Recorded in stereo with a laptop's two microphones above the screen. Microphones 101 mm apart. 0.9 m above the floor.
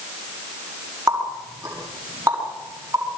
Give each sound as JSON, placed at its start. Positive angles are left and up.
{"t": 1.1, "sound": "a running tap", "side_deg": -30, "distance_m": 6.0}